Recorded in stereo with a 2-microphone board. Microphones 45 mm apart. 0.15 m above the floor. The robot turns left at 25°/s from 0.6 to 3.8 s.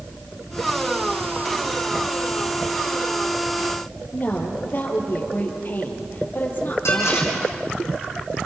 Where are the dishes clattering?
80° left, 5 m.